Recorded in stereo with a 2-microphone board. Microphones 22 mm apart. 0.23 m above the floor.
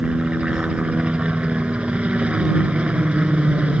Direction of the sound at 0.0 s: 65° right (ahead or behind).